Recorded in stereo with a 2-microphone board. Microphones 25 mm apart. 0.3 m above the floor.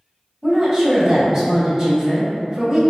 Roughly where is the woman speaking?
Right.